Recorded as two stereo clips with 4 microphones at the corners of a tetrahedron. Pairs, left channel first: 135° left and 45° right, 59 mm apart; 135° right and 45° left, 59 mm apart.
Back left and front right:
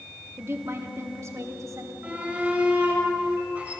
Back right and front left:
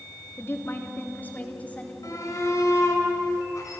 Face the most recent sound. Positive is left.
turn(degrees=-110)